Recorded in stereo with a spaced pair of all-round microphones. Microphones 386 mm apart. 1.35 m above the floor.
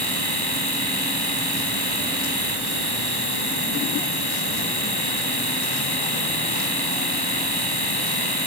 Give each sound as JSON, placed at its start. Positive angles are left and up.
{"t": 0.0, "sound": "a machine running", "side_deg": 75}